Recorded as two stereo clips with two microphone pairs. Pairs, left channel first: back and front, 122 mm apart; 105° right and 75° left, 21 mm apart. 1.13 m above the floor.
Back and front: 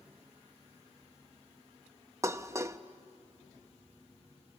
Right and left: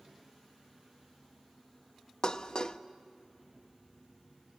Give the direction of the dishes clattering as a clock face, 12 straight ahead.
2 o'clock.